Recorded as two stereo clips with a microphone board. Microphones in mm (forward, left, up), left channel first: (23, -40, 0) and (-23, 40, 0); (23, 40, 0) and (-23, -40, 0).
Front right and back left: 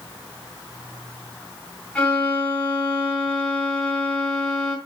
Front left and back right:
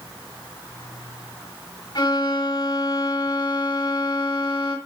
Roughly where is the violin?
Ahead.